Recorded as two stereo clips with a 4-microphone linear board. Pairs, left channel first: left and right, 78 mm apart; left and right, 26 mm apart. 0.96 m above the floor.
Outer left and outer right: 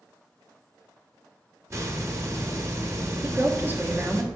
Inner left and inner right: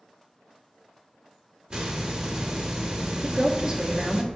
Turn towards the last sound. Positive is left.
turn(degrees=-25)  # may be behind; listen again after turning